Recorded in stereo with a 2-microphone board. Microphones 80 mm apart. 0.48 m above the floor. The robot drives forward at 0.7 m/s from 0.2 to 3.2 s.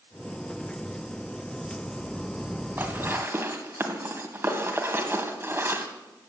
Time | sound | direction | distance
2.8 | dishes clattering | 25° right (ahead or behind) | 2.5 m